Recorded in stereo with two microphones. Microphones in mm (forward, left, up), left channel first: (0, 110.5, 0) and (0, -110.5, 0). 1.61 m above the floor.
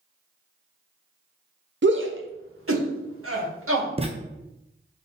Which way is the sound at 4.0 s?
25° right (ahead or behind).